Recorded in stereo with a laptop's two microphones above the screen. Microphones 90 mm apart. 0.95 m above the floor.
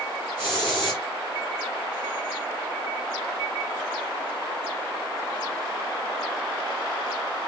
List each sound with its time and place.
0.4 s a hiss: 20° right (ahead or behind), 2 m